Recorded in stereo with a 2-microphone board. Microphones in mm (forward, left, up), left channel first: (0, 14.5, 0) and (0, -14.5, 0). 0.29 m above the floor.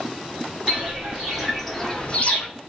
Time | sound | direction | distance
0.7 | footsteps | 25° right (ahead or behind) | 1.9 m